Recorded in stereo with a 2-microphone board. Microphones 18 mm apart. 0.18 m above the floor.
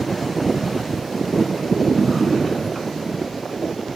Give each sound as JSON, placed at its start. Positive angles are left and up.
{"t": 2.0, "sound": "a drawer", "side_deg": 0, "distance_m": 0.9}